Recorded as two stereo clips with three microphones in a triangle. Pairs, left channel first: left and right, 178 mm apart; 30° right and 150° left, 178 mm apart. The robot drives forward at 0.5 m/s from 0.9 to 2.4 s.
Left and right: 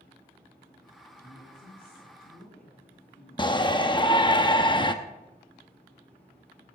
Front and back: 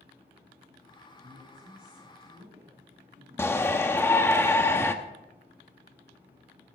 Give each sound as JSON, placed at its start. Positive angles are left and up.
{"t": 1.1, "sound": "a woman speaking", "azimuth_deg": 115, "distance_m": 5.0}
{"t": 3.4, "sound": "a shout", "azimuth_deg": 40, "distance_m": 0.6}